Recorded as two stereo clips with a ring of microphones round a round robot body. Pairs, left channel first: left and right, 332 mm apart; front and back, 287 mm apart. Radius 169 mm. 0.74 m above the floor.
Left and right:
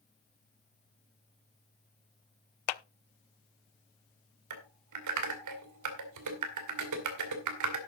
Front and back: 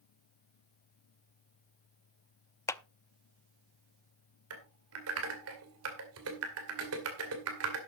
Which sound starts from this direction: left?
A clap, at 2.7 s.